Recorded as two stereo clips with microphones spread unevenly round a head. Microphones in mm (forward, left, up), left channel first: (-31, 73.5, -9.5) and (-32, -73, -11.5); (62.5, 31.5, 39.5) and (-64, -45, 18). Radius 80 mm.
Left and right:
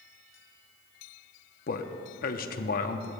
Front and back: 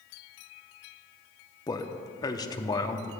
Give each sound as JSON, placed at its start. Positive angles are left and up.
{"t": 1.7, "sound": "a man speaking", "azimuth_deg": 100, "distance_m": 0.7}